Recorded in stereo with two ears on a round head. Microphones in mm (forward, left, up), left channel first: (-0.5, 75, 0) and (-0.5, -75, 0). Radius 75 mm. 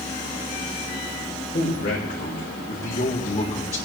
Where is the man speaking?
55° left (ahead or behind), 3.5 m; by 3.8 s 35° left (ahead or behind), 4.5 m.